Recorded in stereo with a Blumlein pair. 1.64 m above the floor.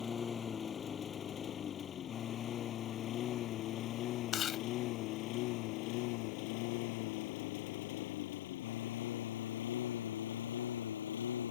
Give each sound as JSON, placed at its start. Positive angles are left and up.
{"t": 0.0, "sound": "a lawn mower", "azimuth_deg": 20}
{"t": 4.3, "sound": "chewing", "azimuth_deg": 30}